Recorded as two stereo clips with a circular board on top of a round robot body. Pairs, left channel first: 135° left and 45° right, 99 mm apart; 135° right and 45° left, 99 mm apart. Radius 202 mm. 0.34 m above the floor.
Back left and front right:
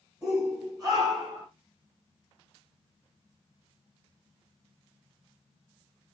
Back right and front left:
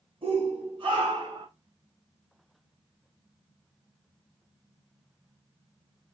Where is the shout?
15° left, 4.5 m; by 1.5 s 5° left, 4 m.